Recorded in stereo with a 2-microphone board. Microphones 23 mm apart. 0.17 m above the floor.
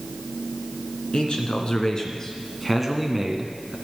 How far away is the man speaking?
About 2.5 m.